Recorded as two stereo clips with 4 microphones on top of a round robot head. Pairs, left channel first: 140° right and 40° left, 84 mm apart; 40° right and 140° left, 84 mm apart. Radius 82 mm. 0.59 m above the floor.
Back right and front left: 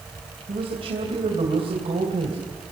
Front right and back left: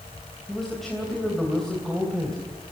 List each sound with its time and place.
0.5 s a man speaking: 50° left, 3 m